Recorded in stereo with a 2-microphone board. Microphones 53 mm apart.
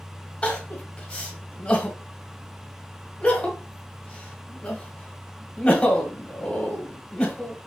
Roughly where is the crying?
Left.